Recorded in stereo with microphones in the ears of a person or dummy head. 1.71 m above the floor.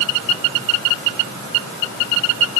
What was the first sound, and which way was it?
Only background noise.